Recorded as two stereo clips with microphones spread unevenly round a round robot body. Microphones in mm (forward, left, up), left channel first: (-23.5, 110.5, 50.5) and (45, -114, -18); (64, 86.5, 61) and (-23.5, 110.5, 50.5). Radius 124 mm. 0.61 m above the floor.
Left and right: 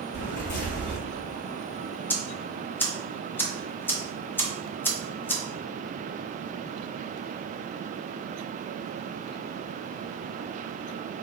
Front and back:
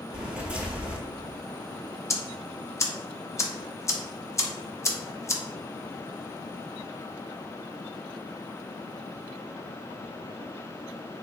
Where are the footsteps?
85° left, 0.9 m.